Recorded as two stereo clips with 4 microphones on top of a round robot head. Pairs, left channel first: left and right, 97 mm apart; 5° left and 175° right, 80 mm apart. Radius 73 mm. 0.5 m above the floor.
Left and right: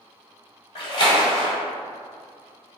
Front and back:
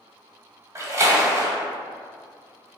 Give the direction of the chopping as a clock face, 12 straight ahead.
I don't hear chopping.